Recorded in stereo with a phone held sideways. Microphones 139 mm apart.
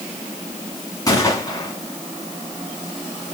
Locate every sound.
1.1 s a gunshot: 25° left (ahead or behind), 2.5 m